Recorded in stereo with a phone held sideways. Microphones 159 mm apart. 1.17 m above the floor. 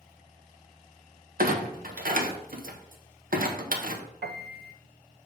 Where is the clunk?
65° right (ahead or behind), 0.9 m.